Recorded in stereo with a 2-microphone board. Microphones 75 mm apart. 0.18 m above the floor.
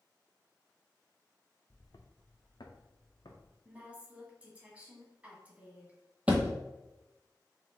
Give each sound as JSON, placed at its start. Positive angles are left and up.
{"t": 1.7, "sound": "footsteps", "side_deg": 60, "distance_m": 1.0}
{"t": 3.6, "sound": "a woman speaking", "side_deg": -20, "distance_m": 1.5}
{"t": 6.3, "sound": "a thud", "side_deg": -20, "distance_m": 0.9}